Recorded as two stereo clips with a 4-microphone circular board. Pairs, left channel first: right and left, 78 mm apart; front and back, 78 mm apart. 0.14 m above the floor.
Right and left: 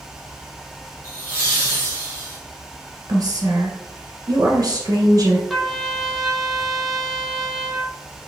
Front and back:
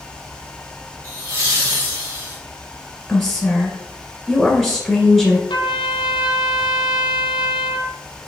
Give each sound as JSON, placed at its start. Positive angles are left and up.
{"t": 1.0, "sound": "laughter", "azimuth_deg": -140, "distance_m": 1.5}
{"t": 3.1, "sound": "a woman speaking", "azimuth_deg": 90, "distance_m": 1.7}
{"t": 5.5, "sound": "a trumpet", "azimuth_deg": 0, "distance_m": 0.7}